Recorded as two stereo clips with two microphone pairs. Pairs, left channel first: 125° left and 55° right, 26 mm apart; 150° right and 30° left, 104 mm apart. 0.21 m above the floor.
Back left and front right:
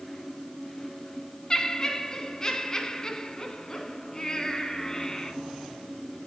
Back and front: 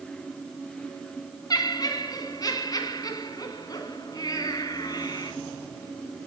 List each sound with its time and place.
1.5 s laughter: 175° left, 2.5 m